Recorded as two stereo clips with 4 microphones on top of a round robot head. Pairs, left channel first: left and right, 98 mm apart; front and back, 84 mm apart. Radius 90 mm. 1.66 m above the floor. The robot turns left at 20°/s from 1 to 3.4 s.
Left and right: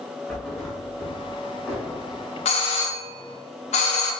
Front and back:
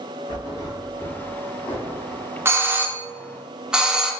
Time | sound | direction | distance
0.3 | a thud | 10° left | 1.4 m
2.5 | a doorbell | 120° left | 0.5 m